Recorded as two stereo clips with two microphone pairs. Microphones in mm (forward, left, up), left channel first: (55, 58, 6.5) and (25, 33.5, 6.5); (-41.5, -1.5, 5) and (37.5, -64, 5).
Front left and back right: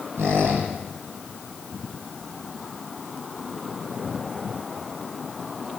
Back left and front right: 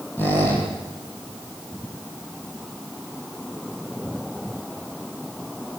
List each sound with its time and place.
0.2 s a squeak: 150° right, 9.5 m